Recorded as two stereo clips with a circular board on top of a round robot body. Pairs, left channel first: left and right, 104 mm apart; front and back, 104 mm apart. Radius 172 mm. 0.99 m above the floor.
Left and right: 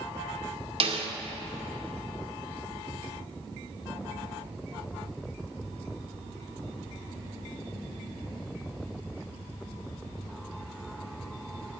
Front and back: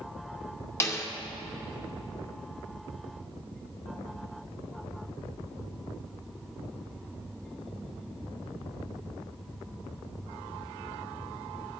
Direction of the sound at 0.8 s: 65° right.